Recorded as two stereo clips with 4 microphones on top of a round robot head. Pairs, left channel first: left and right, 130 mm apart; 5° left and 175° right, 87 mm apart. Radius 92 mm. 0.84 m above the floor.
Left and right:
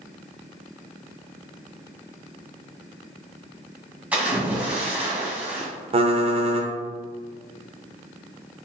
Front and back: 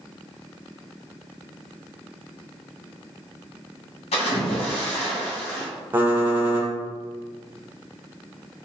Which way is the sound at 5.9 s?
115° right.